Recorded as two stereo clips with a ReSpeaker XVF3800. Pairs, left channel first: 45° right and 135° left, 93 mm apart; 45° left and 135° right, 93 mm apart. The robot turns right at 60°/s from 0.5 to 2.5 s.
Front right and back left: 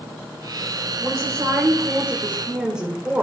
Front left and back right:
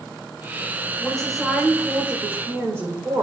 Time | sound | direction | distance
1.0 | a woman speaking | 115° left | 1.4 m